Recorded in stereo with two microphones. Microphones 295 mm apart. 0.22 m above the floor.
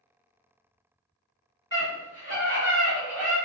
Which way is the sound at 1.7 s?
40° left (ahead or behind).